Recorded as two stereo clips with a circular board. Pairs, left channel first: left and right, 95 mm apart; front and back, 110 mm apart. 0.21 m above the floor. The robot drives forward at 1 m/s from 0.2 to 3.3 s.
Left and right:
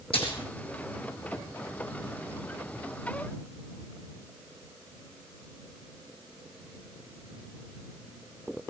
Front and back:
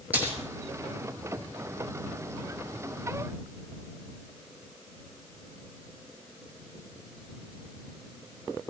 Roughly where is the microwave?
No microwave in this recording.